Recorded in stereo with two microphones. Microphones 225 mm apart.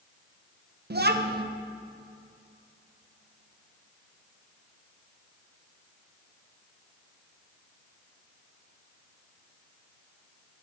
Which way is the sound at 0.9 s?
50° right (ahead or behind).